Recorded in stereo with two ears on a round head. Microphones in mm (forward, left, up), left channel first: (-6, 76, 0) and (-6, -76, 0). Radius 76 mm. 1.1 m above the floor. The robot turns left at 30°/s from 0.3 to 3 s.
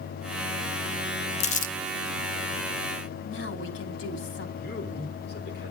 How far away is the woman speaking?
About 3 m.